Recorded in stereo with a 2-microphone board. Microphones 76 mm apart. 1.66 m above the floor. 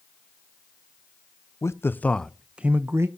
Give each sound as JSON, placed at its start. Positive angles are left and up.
{"t": 1.6, "sound": "a man speaking", "side_deg": 40, "distance_m": 0.6}